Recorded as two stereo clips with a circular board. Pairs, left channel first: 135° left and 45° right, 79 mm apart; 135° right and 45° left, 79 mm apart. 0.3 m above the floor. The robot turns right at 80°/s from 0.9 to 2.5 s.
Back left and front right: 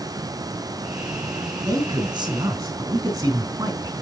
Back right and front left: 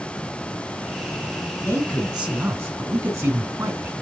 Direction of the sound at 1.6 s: 80° right.